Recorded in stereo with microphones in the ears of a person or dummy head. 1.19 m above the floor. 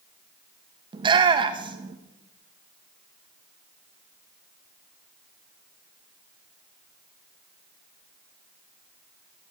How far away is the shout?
About 0.8 m.